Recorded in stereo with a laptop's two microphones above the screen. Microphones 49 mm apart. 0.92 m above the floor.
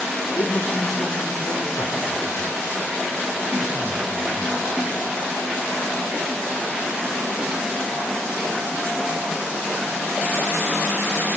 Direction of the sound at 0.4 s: 75° left (ahead or behind).